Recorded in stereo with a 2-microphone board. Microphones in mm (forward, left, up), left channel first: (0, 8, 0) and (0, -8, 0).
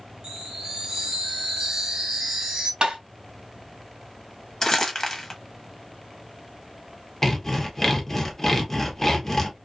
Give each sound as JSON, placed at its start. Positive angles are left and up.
{"t": 0.2, "sound": "a chime", "side_deg": -65, "distance_m": 1.6}
{"t": 2.8, "sound": "tapping", "side_deg": -75, "distance_m": 1.3}
{"t": 4.6, "sound": "crumpling", "side_deg": 35, "distance_m": 0.8}
{"t": 7.2, "sound": "sawing", "side_deg": 20, "distance_m": 0.8}